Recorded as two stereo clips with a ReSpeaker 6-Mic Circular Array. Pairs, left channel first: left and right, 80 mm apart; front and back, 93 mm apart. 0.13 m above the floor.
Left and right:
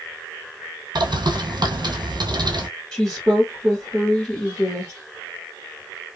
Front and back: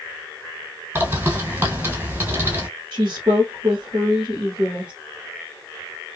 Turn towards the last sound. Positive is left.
turn(degrees=165)